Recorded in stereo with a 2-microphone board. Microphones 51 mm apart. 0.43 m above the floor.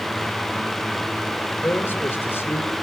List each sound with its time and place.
1.6 s a man speaking: 50° left (ahead or behind), 1.9 m